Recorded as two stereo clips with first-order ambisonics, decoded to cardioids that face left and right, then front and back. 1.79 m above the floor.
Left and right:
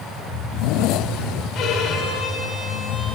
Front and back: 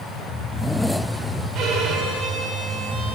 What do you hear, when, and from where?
1.6 s a violin: 135° left, 4 m